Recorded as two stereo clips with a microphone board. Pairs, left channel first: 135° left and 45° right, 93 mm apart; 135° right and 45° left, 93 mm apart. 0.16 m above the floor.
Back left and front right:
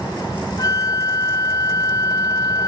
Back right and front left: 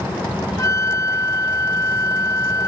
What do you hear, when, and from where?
0.6 s a flute: 175° left, 0.6 m